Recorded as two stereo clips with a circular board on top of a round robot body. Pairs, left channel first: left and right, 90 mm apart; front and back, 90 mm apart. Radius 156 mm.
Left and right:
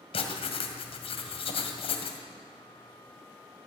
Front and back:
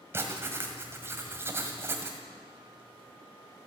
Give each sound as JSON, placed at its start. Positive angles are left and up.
{"t": 0.1, "sound": "writing", "azimuth_deg": 115, "distance_m": 1.9}